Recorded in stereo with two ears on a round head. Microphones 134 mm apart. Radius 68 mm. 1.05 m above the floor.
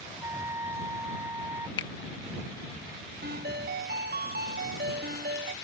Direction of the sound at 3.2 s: 70° right (ahead or behind).